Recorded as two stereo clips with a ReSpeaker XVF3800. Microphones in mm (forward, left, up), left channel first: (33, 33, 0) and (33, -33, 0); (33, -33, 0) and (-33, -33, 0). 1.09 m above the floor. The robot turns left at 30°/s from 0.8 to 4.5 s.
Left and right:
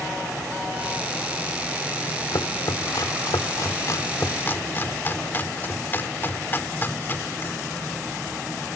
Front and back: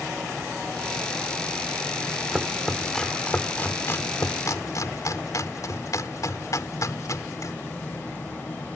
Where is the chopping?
100° left; by 7.5 s 30° left.